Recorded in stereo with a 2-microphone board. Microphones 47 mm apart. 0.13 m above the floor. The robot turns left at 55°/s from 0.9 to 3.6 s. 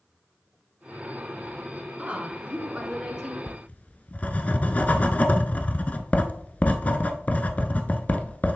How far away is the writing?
About 0.7 m.